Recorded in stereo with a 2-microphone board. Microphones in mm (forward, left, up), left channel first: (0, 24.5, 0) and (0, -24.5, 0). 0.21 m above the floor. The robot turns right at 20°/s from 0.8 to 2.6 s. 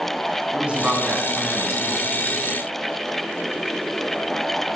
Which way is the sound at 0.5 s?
25° right (ahead or behind).